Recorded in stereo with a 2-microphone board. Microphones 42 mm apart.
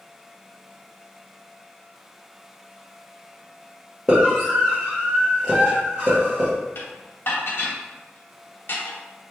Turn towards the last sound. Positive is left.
turn(degrees=55)  # may be behind; listen again after turning